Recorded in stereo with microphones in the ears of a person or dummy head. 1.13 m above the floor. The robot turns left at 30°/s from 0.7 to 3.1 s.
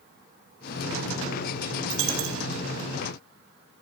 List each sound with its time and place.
1.9 s a dropped coin: 60° right (ahead or behind), 1.0 m; by 2.4 s 65° right (ahead or behind), 1.0 m